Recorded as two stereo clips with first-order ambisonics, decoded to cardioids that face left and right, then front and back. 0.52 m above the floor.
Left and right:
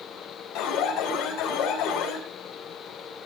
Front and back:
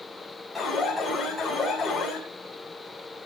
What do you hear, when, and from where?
0.6 s an alarm: 80° left, 4 m